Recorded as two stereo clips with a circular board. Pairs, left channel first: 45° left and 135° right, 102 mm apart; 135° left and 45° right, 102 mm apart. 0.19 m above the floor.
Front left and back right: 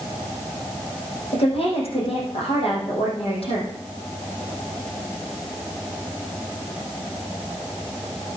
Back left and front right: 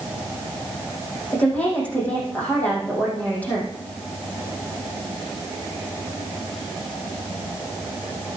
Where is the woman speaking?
60° left, 7 m.